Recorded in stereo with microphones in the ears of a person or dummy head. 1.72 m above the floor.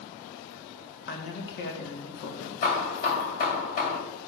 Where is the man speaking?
55° left (ahead or behind), 1.7 m.